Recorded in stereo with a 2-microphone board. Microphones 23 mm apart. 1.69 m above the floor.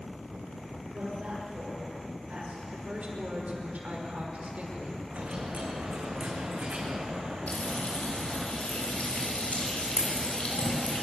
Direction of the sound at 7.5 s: 65° left (ahead or behind).